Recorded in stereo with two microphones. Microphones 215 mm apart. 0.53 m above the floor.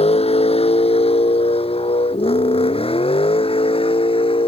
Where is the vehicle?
30° left (ahead or behind); by 4.5 s 25° left (ahead or behind).